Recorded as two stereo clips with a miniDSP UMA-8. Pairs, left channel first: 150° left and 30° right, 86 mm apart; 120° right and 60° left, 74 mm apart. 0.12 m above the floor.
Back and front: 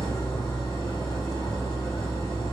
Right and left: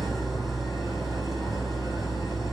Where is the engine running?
150° left, 4 m.